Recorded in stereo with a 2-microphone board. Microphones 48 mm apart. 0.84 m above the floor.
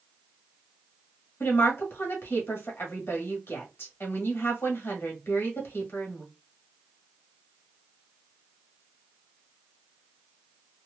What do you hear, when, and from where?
1.4 s a woman speaking: 55° left (ahead or behind), 1.4 m